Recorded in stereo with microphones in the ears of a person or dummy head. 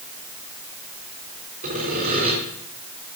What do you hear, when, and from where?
1.6 s sawing: 40° right (ahead or behind), 3.5 m